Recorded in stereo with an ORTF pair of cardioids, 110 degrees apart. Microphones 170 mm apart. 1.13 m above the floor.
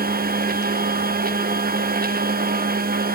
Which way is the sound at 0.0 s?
55° right.